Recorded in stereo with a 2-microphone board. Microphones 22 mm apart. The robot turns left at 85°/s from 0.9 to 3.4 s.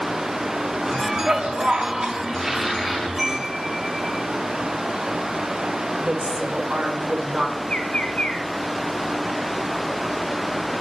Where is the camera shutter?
No camera shutter in this recording.